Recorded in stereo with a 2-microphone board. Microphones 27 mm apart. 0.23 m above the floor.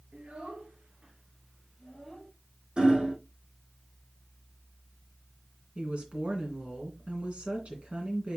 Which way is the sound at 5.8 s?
50° right (ahead or behind).